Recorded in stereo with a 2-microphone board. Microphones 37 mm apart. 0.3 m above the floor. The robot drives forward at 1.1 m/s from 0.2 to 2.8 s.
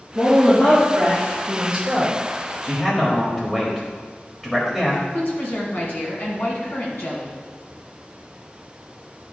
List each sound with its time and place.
0.1 s a woman speaking: 5° right (ahead or behind), 3 m; by 2.2 s 10° right (ahead or behind), 1.2 m
2.6 s a man speaking: 5° left (ahead or behind), 1.3 m
5.1 s a woman speaking: 60° left (ahead or behind), 2 m